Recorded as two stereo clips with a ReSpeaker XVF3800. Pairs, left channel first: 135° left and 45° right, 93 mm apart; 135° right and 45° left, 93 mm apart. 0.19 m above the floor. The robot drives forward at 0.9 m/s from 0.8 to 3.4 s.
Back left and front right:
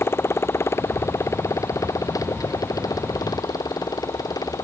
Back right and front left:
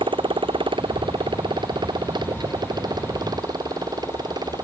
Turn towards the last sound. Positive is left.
turn(degrees=90)